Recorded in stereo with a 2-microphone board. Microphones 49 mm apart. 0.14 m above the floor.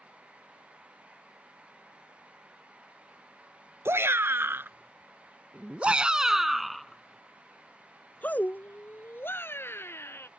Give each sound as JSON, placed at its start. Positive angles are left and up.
{"t": 3.9, "sound": "a shout", "side_deg": -55}